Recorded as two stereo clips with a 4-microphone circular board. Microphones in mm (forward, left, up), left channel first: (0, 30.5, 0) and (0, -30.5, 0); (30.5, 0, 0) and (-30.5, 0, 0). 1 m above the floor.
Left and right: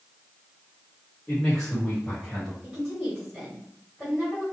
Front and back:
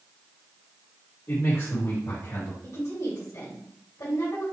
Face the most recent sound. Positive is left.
turn(degrees=-5)